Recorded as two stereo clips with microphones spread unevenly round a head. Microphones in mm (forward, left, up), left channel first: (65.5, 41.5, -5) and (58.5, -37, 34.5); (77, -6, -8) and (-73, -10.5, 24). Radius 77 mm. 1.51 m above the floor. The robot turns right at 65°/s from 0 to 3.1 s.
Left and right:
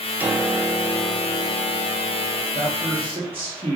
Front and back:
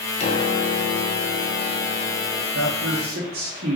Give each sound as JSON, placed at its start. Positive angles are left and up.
{"t": 0.2, "sound": "a piano", "azimuth_deg": -50, "distance_m": 0.7}
{"t": 2.5, "sound": "a man speaking", "azimuth_deg": 175, "distance_m": 1.1}